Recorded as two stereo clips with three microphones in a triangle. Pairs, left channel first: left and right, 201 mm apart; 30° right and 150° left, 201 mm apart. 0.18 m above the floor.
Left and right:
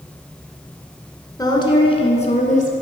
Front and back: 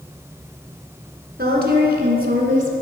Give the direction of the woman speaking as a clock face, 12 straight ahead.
7 o'clock.